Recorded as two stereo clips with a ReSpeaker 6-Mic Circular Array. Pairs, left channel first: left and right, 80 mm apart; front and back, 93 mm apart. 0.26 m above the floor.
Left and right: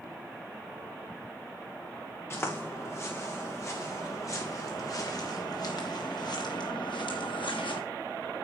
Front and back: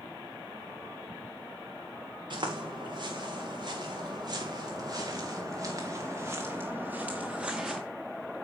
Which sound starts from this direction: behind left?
Footsteps, at 2.3 s.